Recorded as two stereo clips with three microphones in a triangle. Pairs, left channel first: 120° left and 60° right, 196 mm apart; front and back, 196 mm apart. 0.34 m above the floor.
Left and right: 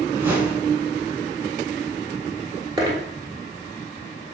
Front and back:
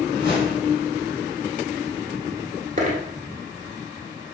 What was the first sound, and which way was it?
A whoosh, 20° left.